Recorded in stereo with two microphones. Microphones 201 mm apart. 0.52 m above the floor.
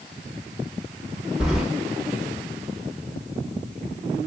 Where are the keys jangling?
5° right (ahead or behind), 0.8 m.